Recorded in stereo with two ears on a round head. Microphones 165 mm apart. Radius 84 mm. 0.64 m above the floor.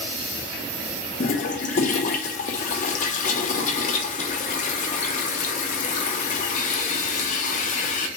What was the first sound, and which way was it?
A toilet flushing, 45° left (ahead or behind).